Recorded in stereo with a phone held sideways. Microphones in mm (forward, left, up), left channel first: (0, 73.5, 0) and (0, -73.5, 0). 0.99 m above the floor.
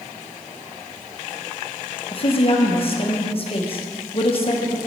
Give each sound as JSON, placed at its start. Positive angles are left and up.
{"t": 2.1, "sound": "a woman speaking", "side_deg": 40, "distance_m": 0.9}